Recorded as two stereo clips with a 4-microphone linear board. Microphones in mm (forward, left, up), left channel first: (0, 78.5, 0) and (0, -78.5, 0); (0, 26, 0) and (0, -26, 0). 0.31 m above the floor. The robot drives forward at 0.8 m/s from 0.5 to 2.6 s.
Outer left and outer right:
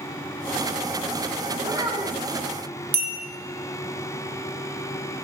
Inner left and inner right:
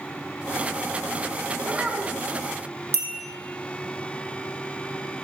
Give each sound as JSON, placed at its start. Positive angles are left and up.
{"t": 1.6, "sound": "a child speaking", "side_deg": -15, "distance_m": 1.6}
{"t": 2.9, "sound": "a bell", "side_deg": -55, "distance_m": 1.5}